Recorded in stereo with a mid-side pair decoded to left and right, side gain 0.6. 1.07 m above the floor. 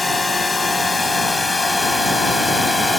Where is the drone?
15° left; by 3.0 s 10° left.